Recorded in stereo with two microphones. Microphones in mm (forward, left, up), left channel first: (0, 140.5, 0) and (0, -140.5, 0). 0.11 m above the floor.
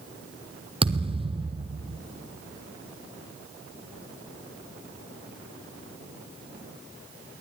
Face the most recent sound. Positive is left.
turn(degrees=-20)  # may be behind; listen again after turning